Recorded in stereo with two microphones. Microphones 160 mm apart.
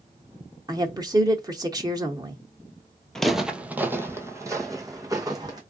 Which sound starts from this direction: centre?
Footsteps, at 3.1 s.